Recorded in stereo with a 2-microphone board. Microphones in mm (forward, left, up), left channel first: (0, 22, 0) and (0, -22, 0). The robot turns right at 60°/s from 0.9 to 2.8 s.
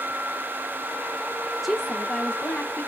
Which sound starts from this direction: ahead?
A woman speaking, at 1.6 s.